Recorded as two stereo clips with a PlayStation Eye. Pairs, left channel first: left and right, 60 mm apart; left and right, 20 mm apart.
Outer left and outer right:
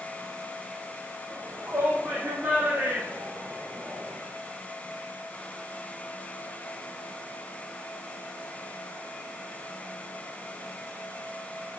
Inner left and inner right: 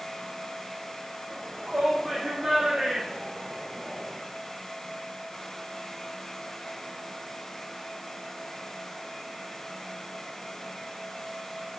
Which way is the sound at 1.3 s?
35° right (ahead or behind).